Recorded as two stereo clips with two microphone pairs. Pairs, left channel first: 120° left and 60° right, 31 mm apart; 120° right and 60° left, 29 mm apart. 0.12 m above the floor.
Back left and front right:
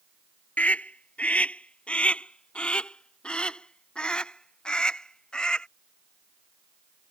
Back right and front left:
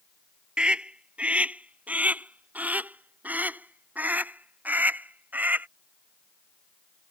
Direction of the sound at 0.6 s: 105° left.